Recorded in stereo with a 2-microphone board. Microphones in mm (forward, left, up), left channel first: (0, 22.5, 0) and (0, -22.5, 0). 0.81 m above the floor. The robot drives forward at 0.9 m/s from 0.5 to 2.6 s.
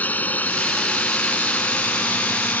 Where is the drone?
40° left (ahead or behind); by 2.6 s 45° left (ahead or behind).